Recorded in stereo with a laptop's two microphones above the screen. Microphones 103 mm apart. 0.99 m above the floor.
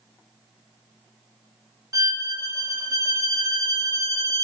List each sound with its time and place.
1.9 s a violin: 35° right (ahead or behind), 0.8 m